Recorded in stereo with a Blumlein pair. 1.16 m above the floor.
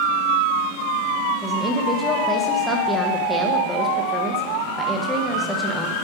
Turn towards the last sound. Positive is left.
turn(degrees=5)